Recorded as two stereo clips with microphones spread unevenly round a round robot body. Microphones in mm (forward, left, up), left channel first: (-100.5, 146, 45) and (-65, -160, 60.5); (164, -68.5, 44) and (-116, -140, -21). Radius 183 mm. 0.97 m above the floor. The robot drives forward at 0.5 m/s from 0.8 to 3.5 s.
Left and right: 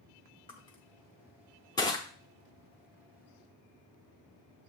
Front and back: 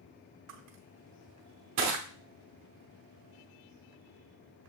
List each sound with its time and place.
0.5 s crushing: 170° left, 0.5 m; by 2.0 s 175° left, 1.0 m